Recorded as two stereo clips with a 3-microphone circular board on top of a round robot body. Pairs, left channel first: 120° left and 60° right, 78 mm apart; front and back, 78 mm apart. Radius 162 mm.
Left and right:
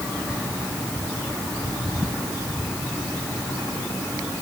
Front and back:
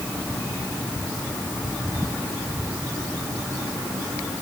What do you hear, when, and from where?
Only background noise.